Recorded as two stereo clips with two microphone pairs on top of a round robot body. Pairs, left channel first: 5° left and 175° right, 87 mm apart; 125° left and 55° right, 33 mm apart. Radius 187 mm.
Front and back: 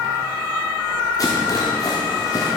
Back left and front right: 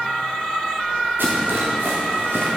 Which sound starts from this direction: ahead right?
A rattle, at 1.2 s.